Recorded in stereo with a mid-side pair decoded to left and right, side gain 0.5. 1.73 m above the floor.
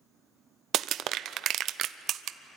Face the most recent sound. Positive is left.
turn(degrees=-65)